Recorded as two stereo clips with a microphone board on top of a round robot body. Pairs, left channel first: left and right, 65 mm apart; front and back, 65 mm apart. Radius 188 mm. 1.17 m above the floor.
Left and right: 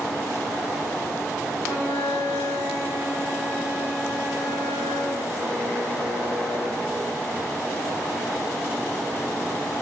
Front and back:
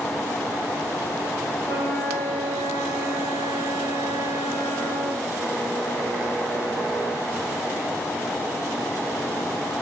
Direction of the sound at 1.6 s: 35° left.